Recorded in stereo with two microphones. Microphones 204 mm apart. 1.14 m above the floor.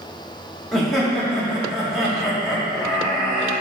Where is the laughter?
Centre (ahead or behind), 2.5 m.